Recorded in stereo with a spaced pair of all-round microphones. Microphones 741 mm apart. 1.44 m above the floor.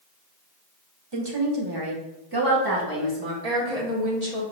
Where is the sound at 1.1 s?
35° right (ahead or behind), 0.8 m; by 3.3 s 25° right (ahead or behind), 2 m.